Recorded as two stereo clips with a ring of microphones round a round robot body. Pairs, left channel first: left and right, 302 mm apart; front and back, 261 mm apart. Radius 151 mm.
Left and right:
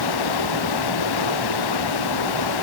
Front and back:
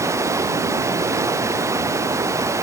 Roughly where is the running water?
Left.